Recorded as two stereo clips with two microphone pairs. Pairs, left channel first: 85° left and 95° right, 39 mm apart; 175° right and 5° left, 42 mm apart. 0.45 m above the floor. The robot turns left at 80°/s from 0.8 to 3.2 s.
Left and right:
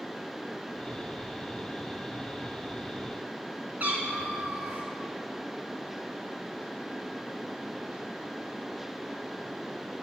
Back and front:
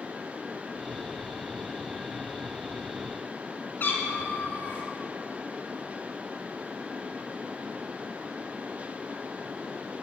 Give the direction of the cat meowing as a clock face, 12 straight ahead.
5 o'clock.